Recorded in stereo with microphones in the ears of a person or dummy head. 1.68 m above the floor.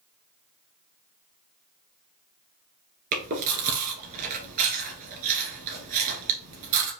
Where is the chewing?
50° right (ahead or behind), 1.8 m.